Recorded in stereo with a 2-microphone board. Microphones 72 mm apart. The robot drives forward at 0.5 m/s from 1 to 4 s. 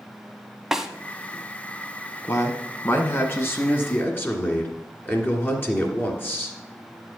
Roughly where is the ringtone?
I don't hear a ringtone.